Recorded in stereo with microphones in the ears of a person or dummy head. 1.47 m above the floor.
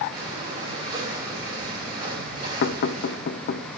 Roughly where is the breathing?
Right.